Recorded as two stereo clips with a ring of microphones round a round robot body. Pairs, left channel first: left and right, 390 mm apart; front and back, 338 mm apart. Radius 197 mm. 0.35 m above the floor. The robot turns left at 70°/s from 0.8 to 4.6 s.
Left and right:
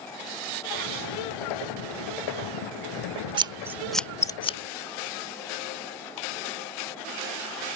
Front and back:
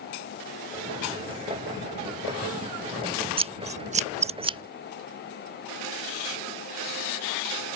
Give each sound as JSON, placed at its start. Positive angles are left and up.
{"t": 3.4, "sound": "scissors", "azimuth_deg": -140}